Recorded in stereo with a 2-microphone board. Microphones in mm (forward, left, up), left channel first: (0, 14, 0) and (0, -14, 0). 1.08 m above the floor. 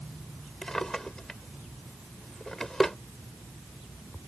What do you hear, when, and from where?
0.6 s a drawer: 25° left (ahead or behind)